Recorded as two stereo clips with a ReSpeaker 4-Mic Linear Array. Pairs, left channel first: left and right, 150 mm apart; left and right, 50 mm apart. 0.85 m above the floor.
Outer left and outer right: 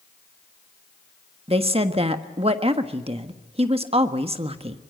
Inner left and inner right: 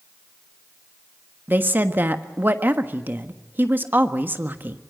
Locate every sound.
1.5 s a woman speaking: 40° right (ahead or behind), 1.4 m